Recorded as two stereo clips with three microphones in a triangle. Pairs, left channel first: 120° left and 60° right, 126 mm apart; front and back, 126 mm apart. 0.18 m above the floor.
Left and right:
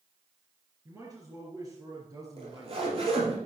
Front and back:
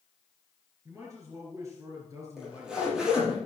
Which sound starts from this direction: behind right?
A man speaking, at 0.8 s.